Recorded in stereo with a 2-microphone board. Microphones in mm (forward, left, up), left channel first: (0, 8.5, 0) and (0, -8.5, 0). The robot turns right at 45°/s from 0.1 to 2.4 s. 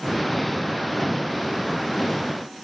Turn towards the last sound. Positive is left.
No sound to turn to.